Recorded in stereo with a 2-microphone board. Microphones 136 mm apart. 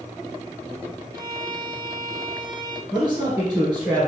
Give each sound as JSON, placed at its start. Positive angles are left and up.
{"t": 1.1, "sound": "a violin", "side_deg": -30, "distance_m": 0.9}
{"t": 2.9, "sound": "a man speaking", "side_deg": -10, "distance_m": 3.0}